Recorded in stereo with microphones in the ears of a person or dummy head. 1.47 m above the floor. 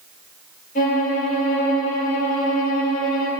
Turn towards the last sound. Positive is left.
turn(degrees=50)  # may be behind; listen again after turning